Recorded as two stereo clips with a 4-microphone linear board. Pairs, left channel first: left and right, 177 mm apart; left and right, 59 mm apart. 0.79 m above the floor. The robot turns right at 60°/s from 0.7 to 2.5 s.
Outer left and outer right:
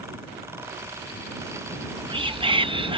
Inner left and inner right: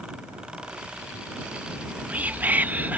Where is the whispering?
20° right (ahead or behind); by 3.0 s 30° right (ahead or behind).